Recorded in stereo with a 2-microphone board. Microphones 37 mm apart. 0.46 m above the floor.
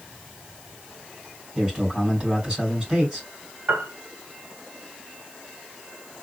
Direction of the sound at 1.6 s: 30° right (ahead or behind).